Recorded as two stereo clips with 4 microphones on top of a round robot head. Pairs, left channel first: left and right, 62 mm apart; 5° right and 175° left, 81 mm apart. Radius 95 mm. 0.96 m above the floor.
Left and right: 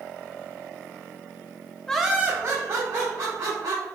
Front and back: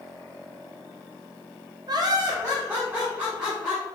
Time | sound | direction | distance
1.9 | laughter | 165° left | 0.6 m